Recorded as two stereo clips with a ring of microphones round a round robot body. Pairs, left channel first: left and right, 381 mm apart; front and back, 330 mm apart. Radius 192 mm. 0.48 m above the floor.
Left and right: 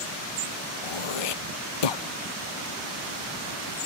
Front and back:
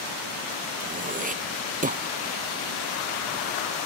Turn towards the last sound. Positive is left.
turn(degrees=115)